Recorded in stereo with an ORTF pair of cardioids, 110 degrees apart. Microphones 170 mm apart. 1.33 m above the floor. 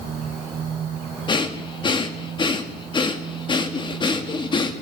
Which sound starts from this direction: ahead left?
Breathing, at 1.3 s.